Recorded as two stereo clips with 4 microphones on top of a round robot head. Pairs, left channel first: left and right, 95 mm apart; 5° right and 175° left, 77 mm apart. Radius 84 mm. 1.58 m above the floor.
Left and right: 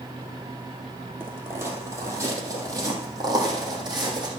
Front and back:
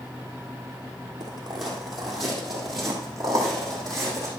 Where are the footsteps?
150° right, 2.0 m; by 4.3 s 130° right, 3 m.